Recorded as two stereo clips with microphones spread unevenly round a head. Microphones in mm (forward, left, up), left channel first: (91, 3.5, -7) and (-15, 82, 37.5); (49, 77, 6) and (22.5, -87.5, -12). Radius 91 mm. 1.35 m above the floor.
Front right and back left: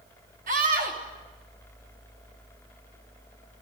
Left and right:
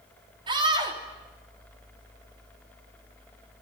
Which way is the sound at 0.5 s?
165° right.